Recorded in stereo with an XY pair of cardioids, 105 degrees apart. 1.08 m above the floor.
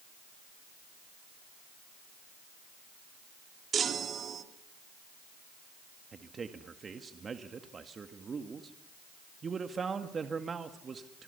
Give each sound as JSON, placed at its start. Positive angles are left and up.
{"t": 3.7, "sound": "a chime", "azimuth_deg": -45, "distance_m": 2.5}
{"t": 6.1, "sound": "a man speaking", "azimuth_deg": -35, "distance_m": 1.8}